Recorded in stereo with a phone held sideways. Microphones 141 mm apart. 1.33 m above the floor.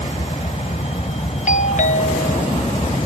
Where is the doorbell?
60° left (ahead or behind).